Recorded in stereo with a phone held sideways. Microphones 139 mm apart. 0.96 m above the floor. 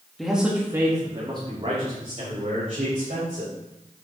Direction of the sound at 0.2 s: Centre (ahead or behind).